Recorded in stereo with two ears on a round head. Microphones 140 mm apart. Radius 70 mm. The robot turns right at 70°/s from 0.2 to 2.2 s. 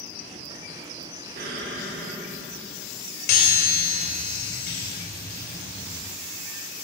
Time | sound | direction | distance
1.4 | an explosion | 115° right | 3 m
3.3 | a chime | 65° left (ahead or behind) | 2.5 m